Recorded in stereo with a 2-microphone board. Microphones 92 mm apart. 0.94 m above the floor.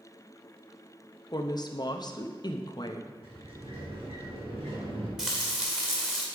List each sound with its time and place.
1.3 s a woman speaking: 45° left (ahead or behind), 0.7 m
3.2 s a sliding door: 85° right, 2.5 m
5.2 s frying: 5° right (ahead or behind), 1.9 m